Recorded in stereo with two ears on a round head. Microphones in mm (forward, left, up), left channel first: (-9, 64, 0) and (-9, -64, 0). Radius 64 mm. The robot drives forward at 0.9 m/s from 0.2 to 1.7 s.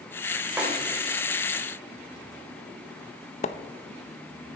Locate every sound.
0.6 s a snare drum: 10° right (ahead or behind), 3.5 m
3.4 s a splash: 50° left (ahead or behind), 0.6 m